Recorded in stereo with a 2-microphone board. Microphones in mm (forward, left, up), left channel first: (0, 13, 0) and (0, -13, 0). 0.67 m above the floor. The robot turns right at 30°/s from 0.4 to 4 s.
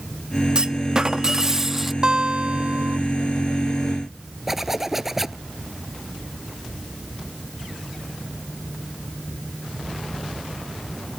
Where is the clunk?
55° right; by 1.9 s 15° right.